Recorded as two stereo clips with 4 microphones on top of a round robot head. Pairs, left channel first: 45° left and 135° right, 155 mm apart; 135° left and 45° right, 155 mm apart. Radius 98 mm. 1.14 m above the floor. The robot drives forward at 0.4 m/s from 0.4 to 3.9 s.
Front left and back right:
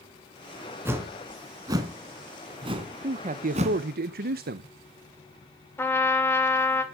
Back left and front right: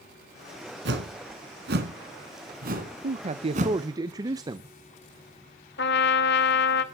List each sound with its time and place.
0.8 s a whoosh: 60° right, 2.5 m; by 3.8 s 90° right, 2 m
3.0 s a man speaking: 85° right, 0.8 m; by 4.7 s 110° right, 0.8 m
5.8 s a trumpet: 120° left, 1.8 m